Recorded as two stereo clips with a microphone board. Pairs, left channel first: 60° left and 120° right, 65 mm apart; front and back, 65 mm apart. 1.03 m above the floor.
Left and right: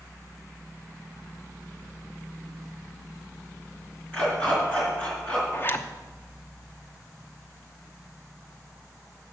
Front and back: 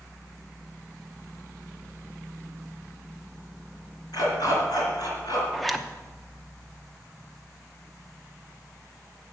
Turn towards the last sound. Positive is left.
turn(degrees=90)